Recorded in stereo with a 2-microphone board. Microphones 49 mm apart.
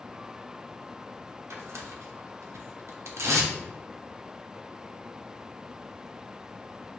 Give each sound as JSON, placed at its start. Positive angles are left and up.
{"t": 1.5, "sound": "tearing paper", "side_deg": -80, "distance_m": 0.8}